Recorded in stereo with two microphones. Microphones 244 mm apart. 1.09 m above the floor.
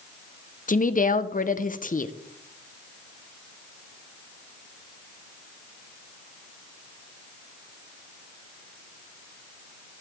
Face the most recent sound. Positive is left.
turn(degrees=35)  # may be behind; listen again after turning